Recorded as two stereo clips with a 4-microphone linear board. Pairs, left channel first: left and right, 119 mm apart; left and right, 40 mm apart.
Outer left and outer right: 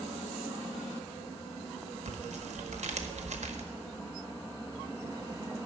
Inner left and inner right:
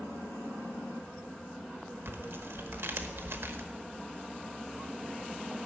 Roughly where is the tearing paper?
Right.